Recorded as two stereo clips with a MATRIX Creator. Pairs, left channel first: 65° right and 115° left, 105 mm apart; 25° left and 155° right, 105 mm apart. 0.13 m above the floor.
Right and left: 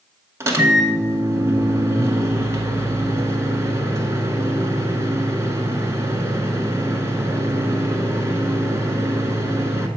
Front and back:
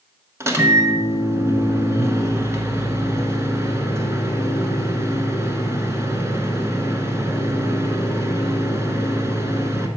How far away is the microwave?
About 1.1 m.